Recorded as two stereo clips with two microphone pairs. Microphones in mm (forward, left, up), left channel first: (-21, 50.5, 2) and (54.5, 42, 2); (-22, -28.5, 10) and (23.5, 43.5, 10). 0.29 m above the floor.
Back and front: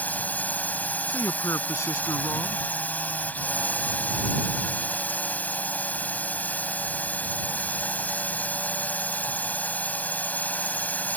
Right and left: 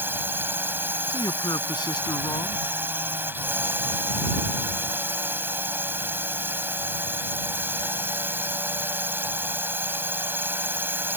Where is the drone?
115° left.